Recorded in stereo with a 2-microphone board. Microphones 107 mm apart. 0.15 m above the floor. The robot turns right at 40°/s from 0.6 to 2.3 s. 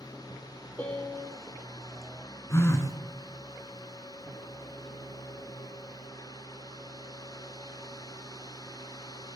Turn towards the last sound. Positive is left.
turn(degrees=30)  # may be behind; listen again after turning